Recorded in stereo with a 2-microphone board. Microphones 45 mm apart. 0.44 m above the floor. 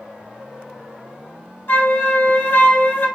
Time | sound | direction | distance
1.7 | a flute | 60° left (ahead or behind) | 2 m